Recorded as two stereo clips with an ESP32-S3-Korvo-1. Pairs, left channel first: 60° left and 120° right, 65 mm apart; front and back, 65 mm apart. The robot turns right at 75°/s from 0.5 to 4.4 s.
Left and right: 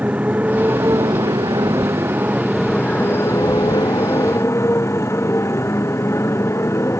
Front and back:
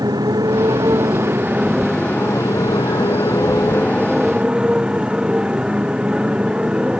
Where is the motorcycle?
170° left; by 7.0 s 105° left.